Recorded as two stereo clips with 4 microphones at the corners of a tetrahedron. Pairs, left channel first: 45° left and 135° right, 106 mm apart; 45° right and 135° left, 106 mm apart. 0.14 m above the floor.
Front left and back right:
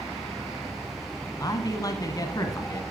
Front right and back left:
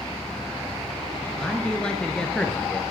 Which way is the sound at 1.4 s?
30° left.